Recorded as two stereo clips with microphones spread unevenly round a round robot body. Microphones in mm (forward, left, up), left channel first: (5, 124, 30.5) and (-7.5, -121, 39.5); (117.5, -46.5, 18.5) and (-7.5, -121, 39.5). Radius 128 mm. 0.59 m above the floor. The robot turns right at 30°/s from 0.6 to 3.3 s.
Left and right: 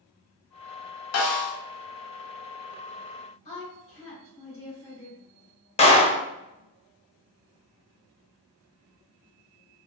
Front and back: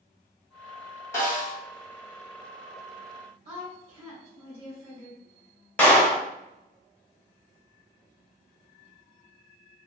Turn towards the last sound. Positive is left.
turn(degrees=75)